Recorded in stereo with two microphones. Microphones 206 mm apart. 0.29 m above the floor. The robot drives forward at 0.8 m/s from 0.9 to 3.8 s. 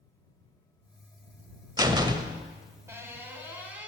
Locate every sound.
1.8 s a door slam: 20° right (ahead or behind), 0.6 m; by 3.9 s 10° right (ahead or behind), 1.6 m